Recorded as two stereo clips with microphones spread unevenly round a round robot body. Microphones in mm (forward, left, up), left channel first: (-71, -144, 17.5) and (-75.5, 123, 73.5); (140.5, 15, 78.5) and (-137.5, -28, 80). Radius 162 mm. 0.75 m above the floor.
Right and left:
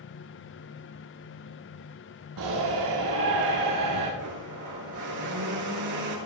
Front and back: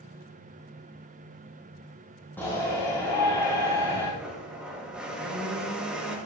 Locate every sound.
2.4 s a shout: 90° left, 8.5 m
4.2 s a blender: 100° left, 6 m